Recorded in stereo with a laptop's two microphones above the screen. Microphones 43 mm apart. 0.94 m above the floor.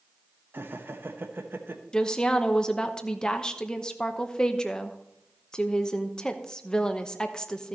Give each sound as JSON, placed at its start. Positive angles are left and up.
{"t": 0.5, "sound": "laughter", "side_deg": -60, "distance_m": 0.9}
{"t": 1.9, "sound": "a woman speaking", "side_deg": 20, "distance_m": 0.8}